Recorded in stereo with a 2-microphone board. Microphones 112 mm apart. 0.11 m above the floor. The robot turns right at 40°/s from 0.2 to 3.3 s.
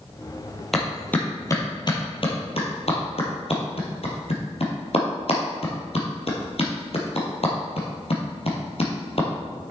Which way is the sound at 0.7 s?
Centre (ahead or behind).